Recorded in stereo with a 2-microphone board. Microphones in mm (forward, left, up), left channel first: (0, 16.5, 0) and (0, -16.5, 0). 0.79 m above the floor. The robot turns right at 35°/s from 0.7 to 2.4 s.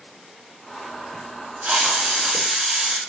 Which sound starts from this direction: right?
A hiss, at 1.6 s.